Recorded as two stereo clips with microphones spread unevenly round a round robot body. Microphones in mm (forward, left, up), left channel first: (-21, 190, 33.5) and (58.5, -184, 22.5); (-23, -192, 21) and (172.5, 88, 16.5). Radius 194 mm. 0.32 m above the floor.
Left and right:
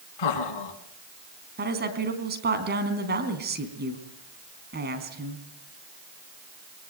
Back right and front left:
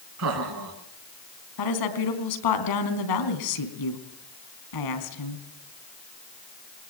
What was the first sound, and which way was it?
Laughter, 100° left.